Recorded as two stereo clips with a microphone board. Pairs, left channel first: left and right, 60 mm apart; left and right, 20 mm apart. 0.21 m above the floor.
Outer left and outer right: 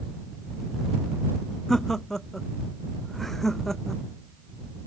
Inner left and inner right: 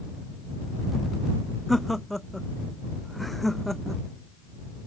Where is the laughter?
5° left (ahead or behind).